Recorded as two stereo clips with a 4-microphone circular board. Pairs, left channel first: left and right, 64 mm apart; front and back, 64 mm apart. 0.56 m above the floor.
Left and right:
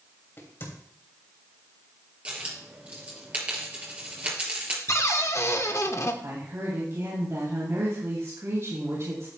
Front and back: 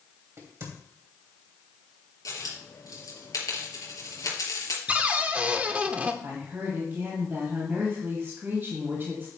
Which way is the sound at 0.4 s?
140° left.